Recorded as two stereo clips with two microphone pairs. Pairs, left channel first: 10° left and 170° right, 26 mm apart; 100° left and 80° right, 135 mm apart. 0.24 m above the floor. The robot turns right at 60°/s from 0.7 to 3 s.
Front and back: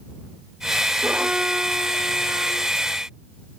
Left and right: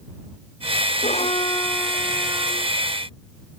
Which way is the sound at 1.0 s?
130° left.